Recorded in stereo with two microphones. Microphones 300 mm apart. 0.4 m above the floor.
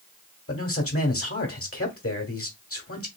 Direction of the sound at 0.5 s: 50° left (ahead or behind).